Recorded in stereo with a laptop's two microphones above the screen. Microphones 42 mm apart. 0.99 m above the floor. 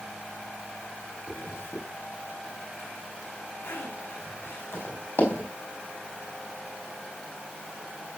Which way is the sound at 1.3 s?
65° left (ahead or behind).